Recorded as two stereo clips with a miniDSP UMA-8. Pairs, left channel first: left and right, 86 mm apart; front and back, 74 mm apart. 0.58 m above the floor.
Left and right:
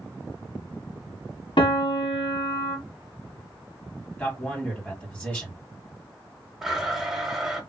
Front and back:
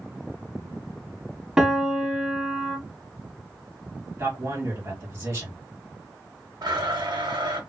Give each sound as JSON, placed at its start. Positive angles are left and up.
{"t": 1.6, "sound": "a piano", "azimuth_deg": 100, "distance_m": 0.8}
{"t": 4.2, "sound": "a man speaking", "azimuth_deg": 155, "distance_m": 1.6}
{"t": 6.6, "sound": "a blender", "azimuth_deg": -175, "distance_m": 0.9}